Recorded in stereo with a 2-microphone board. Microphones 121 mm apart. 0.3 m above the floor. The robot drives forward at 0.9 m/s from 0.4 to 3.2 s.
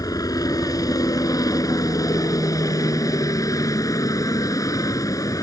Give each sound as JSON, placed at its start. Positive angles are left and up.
{"t": 0.0, "sound": "a helicopter", "side_deg": 30}